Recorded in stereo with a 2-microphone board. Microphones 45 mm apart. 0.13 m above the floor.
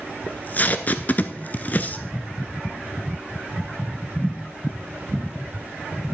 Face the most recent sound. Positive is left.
turn(degrees=40)  # may be behind; listen again after turning